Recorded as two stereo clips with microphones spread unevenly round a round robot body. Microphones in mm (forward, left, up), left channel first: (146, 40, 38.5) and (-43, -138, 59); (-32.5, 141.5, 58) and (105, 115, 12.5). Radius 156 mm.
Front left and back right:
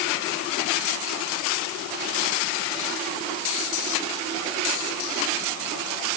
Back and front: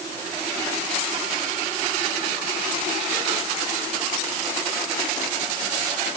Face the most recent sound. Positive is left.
No sound to turn to.